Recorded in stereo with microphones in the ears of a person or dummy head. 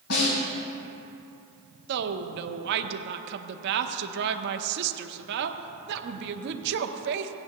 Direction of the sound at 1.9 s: 60° right (ahead or behind).